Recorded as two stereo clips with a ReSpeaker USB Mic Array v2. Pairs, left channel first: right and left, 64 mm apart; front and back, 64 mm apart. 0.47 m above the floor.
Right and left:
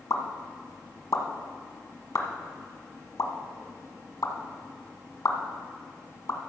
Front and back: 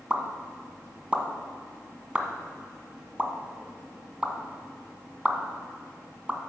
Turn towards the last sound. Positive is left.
turn(degrees=-110)